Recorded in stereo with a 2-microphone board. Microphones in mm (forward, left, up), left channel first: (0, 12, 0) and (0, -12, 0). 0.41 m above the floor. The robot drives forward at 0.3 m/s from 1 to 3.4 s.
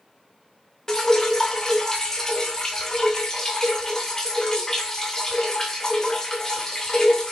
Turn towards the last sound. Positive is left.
turn(degrees=20)  # may be behind; listen again after turning